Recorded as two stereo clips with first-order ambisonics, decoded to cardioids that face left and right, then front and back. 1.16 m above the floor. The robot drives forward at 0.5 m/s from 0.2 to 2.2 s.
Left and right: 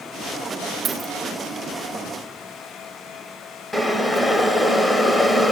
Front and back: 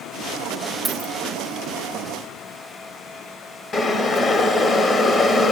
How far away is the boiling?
About 0.9 m.